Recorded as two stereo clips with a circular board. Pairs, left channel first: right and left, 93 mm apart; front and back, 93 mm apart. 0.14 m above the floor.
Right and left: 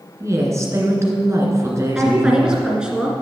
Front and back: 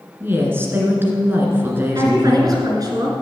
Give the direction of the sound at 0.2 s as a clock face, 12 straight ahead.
8 o'clock.